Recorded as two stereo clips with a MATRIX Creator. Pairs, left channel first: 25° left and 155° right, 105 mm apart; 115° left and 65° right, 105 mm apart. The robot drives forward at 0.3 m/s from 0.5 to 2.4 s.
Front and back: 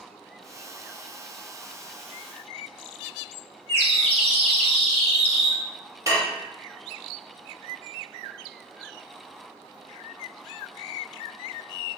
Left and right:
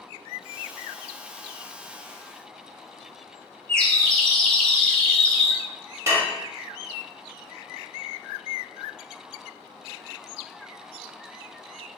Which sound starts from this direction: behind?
A bird, at 3.7 s.